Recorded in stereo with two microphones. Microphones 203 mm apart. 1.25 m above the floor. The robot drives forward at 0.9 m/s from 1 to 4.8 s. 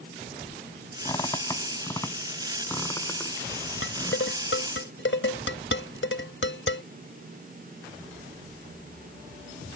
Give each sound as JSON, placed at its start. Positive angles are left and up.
{"t": 1.1, "sound": "a squeak", "side_deg": 20}
{"t": 3.8, "sound": "dishes clattering", "side_deg": 85}